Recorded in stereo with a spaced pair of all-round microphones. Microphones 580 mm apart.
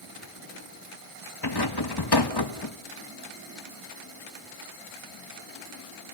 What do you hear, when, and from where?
1.4 s a rattle: 40° left (ahead or behind), 1.3 m